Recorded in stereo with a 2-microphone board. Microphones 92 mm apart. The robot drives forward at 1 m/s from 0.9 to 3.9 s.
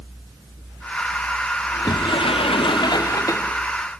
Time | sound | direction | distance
1.7 | a sliding door | 40° left (ahead or behind) | 1.0 m